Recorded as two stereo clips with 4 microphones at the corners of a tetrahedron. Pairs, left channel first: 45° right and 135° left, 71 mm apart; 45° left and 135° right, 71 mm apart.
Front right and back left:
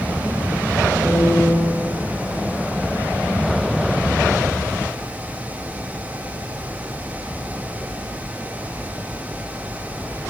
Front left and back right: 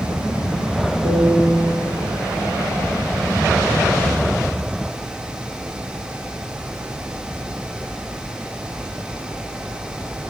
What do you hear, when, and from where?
1.1 s a piano: 145° right, 1.4 m